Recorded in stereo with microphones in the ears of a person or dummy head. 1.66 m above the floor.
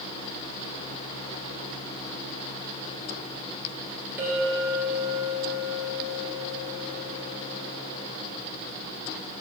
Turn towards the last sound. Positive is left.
turn(degrees=-10)  # may be behind; listen again after turning